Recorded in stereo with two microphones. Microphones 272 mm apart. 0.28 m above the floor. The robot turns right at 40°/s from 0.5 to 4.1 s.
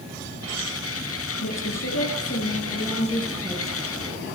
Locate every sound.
1.4 s a woman speaking: 90° left, 4.5 m; by 3.9 s 175° right, 4.5 m